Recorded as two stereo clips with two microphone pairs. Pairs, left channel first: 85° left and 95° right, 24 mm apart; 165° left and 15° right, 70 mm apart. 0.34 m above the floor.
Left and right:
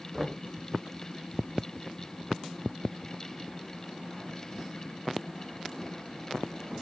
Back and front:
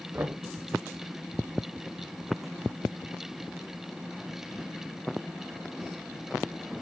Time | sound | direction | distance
0.1 | knocking | 15° right | 0.6 m